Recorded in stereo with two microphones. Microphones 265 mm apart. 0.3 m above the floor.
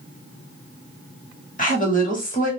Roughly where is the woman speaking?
Left.